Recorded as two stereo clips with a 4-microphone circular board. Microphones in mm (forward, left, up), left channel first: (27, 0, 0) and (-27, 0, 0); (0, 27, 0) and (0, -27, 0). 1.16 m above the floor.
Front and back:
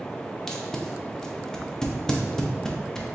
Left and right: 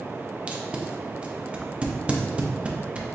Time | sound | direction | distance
0.5 | tape being pulled | 60° right | 0.6 m